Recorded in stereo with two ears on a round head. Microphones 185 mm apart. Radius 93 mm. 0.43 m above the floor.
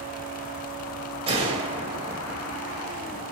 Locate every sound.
1.3 s a gunshot: 30° right (ahead or behind), 2.5 m